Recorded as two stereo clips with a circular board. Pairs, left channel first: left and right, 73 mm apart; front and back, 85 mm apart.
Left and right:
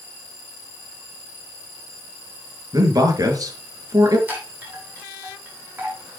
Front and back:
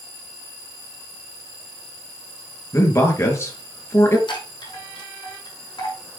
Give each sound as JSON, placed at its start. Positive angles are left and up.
{"t": 2.7, "sound": "a man speaking", "azimuth_deg": -55, "distance_m": 4.0}
{"t": 4.3, "sound": "a chime", "azimuth_deg": -25, "distance_m": 5.0}